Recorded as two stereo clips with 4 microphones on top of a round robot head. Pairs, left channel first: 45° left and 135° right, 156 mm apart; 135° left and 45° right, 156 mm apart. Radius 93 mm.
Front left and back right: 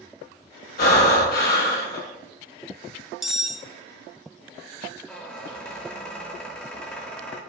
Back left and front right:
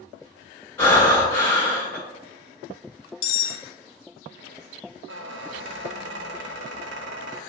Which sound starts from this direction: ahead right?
A squeak, at 5.1 s.